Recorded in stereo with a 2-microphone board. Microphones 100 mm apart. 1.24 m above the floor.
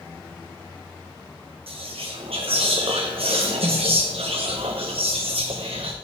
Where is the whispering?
80° right, 0.7 m.